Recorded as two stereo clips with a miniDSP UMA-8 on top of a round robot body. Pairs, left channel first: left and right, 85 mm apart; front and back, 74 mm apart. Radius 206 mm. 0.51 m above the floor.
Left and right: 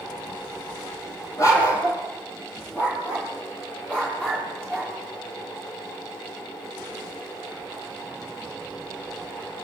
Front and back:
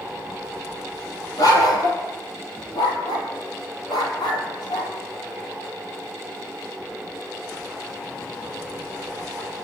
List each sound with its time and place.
1.4 s a dog barking: 40° left, 6 m; by 4.9 s 15° left, 6.5 m